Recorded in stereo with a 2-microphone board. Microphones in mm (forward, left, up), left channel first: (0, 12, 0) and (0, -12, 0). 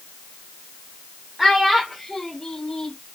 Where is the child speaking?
5° right (ahead or behind), 1.0 m; by 3.0 s 30° left (ahead or behind), 1.0 m.